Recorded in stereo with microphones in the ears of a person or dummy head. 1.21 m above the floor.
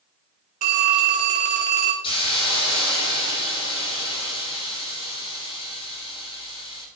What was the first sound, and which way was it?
A phone ringing, 40° right (ahead or behind).